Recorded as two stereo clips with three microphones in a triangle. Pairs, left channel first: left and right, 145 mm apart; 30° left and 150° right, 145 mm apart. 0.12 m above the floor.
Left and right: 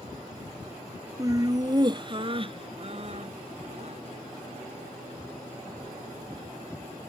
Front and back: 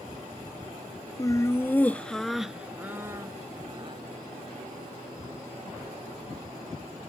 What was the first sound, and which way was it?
Laughter, 30° right.